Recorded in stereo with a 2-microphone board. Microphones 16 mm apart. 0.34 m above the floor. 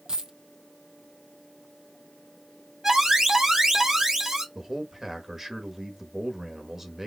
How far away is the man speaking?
About 1.1 m.